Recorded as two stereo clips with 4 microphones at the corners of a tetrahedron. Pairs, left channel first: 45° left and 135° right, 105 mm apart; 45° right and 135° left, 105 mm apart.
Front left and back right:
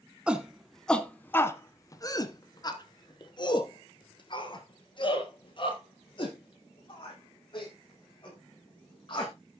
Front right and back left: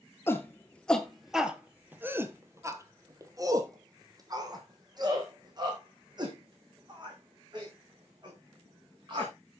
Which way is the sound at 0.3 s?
70° right.